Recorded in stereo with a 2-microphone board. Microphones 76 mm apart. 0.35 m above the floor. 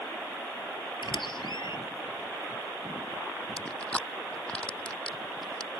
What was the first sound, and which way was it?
A squeak, 80° left.